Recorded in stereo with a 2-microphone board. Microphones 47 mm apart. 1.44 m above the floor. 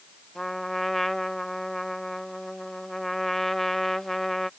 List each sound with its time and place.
0.3 s a trumpet: 5° left (ahead or behind)